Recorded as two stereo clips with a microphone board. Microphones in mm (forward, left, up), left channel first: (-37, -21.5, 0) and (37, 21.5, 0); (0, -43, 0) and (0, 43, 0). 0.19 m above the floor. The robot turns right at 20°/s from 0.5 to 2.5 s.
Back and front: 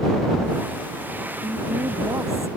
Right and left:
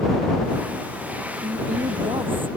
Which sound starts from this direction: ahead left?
A woman speaking, at 1.4 s.